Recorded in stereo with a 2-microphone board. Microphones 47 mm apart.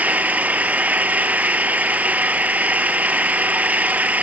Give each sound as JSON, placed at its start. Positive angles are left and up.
{"t": 0.0, "sound": "an engine running", "side_deg": -30, "distance_m": 1.1}